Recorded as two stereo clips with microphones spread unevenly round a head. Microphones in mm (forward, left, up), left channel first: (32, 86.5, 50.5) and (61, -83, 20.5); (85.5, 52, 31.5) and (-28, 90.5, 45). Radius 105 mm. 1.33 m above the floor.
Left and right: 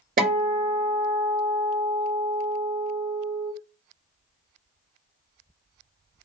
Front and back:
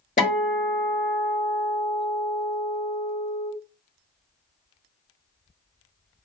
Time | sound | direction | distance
0.2 | a guitar | 45° right | 1.5 m